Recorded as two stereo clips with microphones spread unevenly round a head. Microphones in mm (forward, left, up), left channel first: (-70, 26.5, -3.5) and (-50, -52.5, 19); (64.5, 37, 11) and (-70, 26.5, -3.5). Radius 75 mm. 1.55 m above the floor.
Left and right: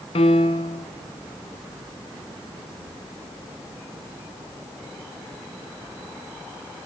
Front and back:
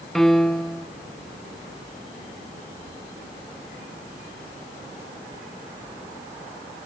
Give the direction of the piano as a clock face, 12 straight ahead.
9 o'clock.